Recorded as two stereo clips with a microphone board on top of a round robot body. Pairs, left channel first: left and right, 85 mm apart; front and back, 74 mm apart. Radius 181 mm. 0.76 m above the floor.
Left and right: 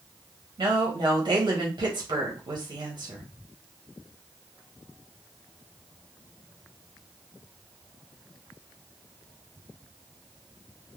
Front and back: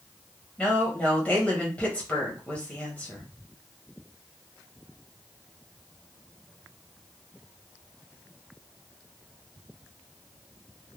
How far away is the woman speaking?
About 1.2 m.